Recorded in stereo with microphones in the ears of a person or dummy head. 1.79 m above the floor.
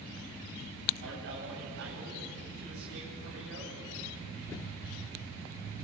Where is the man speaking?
65° right (ahead or behind), 10 m.